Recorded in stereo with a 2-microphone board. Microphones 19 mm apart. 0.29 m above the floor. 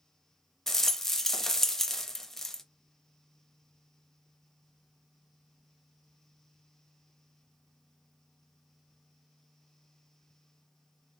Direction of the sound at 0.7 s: 25° left (ahead or behind).